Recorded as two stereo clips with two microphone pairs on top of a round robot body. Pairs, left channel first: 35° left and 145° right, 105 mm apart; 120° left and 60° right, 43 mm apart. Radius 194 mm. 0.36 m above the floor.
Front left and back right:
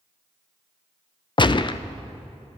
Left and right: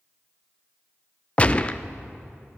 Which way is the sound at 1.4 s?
55° left.